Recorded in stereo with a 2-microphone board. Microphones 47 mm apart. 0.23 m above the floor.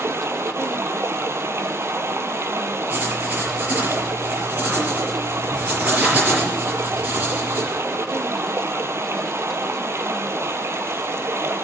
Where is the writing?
35° right (ahead or behind), 5 m.